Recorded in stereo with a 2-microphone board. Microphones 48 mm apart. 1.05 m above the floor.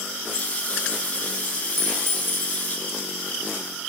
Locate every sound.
0.3 s a running tap: 30° left (ahead or behind), 5.5 m
1.8 s a clink: 60° right (ahead or behind), 10 m